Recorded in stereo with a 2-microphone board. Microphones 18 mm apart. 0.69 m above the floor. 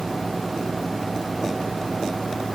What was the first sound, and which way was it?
Only background noise.